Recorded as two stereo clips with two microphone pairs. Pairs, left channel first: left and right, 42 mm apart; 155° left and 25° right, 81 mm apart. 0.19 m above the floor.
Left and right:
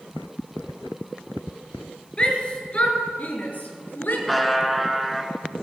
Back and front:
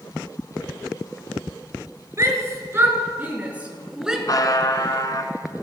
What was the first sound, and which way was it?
A shout, 20° left.